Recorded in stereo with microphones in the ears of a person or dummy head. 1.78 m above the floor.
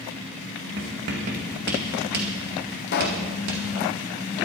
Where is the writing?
50° right (ahead or behind), 2 m.